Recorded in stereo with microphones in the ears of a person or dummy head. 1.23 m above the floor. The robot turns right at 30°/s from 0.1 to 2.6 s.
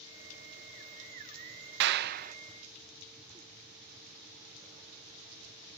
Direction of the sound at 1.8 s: 60° right (ahead or behind).